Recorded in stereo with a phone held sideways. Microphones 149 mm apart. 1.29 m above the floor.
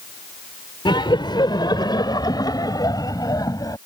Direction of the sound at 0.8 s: 30° left (ahead or behind).